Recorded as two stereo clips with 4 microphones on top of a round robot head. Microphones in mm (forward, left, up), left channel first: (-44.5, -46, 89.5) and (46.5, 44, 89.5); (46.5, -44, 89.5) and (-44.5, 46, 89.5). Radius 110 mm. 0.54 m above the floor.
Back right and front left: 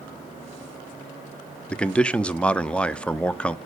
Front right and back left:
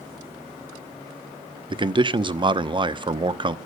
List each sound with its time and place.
1.7 s a man speaking: 150° left, 1.0 m